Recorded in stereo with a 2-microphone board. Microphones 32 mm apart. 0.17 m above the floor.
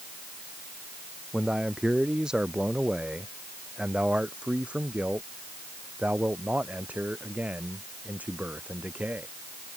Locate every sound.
1.3 s a man speaking: 15° right (ahead or behind); by 9.3 s 60° right (ahead or behind)